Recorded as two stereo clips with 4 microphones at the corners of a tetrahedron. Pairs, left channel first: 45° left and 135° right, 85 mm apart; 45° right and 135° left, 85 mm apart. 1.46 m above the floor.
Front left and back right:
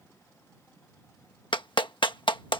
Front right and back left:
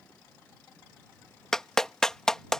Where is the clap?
35° left.